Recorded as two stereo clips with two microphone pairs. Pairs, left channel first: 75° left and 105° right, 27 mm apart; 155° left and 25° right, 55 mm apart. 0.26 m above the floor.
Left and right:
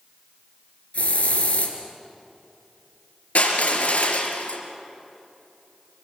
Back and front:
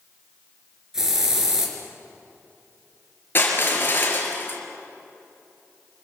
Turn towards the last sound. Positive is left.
turn(degrees=100)